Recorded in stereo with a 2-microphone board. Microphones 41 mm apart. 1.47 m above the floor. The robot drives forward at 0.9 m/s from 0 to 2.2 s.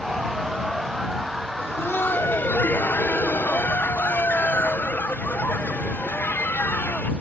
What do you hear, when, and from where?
1.6 s laughter: 80° left; by 7.1 s 55° left (ahead or behind)